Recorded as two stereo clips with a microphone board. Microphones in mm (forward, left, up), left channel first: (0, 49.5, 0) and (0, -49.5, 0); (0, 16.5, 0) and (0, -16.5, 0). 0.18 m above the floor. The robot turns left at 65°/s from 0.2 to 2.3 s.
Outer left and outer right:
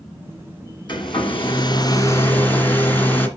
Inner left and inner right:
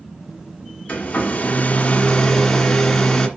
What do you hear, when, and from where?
0.9 s a hair dryer: 115° left, 1.9 m; by 3.3 s 20° left, 1.9 m